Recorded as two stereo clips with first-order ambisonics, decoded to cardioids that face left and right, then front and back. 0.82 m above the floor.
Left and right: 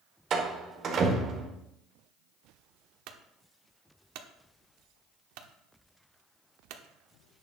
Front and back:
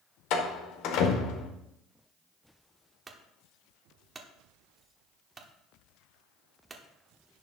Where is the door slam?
35° right, 1.7 m.